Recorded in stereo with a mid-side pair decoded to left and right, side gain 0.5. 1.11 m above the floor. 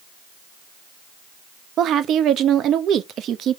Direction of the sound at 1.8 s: 60° right.